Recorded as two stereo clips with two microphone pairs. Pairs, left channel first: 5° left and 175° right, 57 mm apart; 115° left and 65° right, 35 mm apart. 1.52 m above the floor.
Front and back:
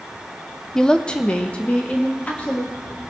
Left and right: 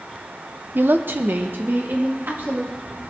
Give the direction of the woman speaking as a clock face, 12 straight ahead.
2 o'clock.